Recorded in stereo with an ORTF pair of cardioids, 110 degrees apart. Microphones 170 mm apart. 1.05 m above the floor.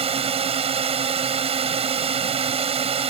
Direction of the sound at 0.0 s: 35° right.